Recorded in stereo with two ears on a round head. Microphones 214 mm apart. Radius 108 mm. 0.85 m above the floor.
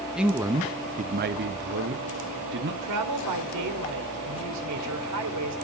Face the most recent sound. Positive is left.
turn(degrees=-80)